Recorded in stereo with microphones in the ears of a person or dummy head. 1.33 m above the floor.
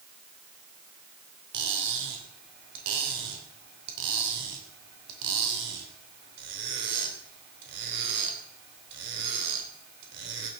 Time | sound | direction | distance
1.5 | cutlery clinking | 60° right (ahead or behind) | 3 m